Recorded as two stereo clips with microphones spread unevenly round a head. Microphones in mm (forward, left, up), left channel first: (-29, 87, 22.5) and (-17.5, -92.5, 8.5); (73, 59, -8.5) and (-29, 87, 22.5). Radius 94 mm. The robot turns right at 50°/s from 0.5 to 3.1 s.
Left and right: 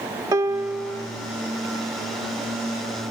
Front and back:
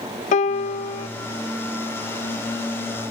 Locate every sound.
0.3 s a piano: 10° right, 0.6 m; by 1.1 s 20° left, 0.6 m